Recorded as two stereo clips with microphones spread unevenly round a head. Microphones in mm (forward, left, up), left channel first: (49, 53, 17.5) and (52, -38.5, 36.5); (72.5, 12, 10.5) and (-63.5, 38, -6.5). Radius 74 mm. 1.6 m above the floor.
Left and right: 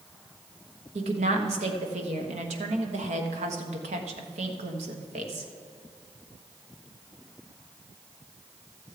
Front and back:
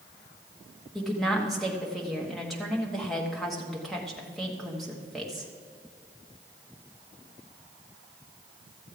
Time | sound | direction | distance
0.9 | a woman speaking | 100° right | 1.2 m